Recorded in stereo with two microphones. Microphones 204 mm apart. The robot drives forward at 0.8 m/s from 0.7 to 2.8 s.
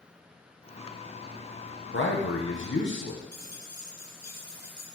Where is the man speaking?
70° left (ahead or behind), 1.0 m; by 3.2 s 65° left (ahead or behind), 1.0 m.